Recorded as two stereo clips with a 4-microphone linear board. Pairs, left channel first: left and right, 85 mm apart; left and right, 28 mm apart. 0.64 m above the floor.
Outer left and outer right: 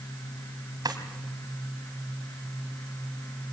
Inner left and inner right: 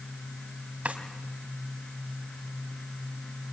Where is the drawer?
60° right (ahead or behind), 3 m.